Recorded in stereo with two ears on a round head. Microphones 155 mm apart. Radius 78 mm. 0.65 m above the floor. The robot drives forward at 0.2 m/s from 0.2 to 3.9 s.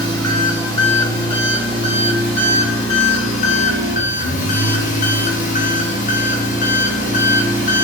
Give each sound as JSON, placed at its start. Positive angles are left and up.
{"t": 0.0, "sound": "an engine running", "side_deg": 20, "distance_m": 1.4}